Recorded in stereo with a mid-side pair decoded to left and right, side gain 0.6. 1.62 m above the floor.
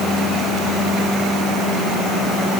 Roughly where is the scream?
No scream in this recording.